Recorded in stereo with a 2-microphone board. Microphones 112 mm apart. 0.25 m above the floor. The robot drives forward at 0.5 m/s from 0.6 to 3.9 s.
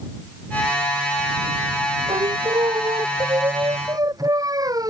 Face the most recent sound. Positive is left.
turn(degrees=-35)  # may be behind; listen again after turning